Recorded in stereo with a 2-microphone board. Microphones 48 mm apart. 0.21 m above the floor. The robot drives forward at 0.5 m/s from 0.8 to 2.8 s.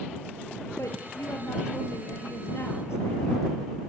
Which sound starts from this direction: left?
A woman speaking, at 0.8 s.